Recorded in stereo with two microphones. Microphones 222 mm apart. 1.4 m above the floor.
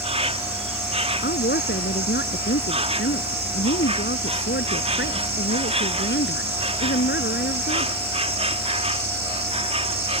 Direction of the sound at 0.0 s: 30° right (ahead or behind).